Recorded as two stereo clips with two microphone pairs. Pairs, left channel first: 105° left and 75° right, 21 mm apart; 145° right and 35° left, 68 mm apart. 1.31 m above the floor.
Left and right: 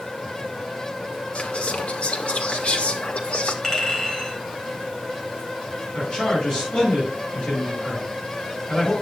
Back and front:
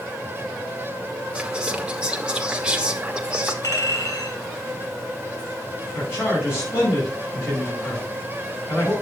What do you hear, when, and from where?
1.4 s whispering: 105° left, 1.6 m
3.6 s a clink: straight behind, 4 m
5.9 s a man speaking: 160° left, 7 m